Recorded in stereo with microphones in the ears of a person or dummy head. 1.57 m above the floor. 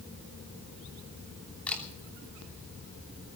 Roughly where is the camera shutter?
Centre.